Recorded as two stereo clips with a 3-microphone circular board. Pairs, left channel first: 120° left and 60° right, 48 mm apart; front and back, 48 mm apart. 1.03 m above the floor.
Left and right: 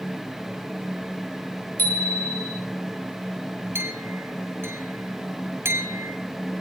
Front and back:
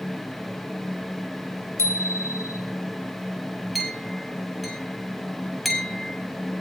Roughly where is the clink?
Right.